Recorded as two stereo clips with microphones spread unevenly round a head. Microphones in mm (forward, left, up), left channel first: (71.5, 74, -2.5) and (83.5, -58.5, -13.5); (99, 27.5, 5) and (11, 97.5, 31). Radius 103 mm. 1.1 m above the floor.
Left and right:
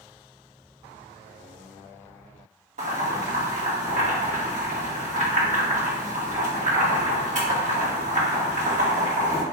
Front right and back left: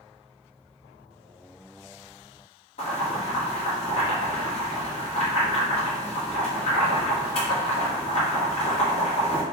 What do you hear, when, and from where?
2.8 s boiling: 65° right, 1.4 m